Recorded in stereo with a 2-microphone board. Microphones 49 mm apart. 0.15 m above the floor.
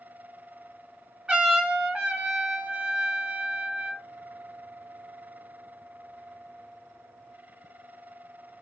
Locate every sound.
1.3 s a trumpet: 20° right (ahead or behind), 1.1 m